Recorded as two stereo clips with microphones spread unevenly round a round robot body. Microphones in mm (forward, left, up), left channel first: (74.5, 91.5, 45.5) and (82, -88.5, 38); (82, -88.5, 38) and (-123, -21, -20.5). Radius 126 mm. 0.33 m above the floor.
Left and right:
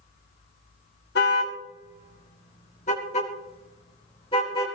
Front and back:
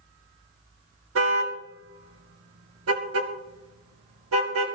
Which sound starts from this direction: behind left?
A car horn, at 1.1 s.